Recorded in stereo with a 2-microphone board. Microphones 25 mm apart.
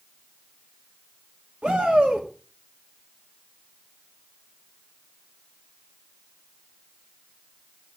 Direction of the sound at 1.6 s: 50° right (ahead or behind).